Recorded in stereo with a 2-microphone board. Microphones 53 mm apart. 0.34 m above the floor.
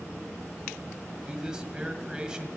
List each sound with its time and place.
1.3 s a man speaking: 15° right (ahead or behind), 2 m